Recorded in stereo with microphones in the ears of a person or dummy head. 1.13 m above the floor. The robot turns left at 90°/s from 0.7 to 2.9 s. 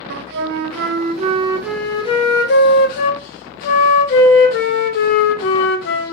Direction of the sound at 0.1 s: 85° right.